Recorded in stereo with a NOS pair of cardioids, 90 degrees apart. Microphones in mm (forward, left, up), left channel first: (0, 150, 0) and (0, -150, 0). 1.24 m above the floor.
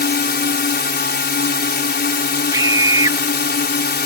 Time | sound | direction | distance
0.0 | a drone | 35° left | ?
2.5 | a scream | 15° right | ?